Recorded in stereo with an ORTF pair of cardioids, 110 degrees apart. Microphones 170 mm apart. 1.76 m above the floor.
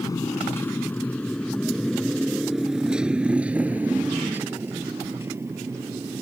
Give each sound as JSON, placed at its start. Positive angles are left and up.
{"t": 0.0, "sound": "a motorcycle", "azimuth_deg": 20}